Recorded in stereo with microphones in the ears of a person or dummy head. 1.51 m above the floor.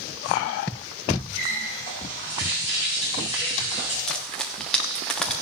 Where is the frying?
Centre (ahead or behind), 1.3 m.